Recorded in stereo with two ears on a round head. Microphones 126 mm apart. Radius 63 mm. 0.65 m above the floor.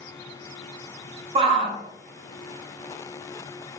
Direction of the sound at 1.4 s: 40° right (ahead or behind).